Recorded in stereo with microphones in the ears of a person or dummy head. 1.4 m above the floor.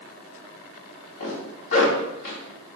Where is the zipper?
55° left (ahead or behind), 3 m.